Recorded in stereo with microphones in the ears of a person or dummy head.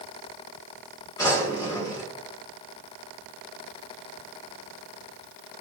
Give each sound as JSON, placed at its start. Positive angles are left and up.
{"t": 1.2, "sound": "a drawer", "side_deg": 20, "distance_m": 1.5}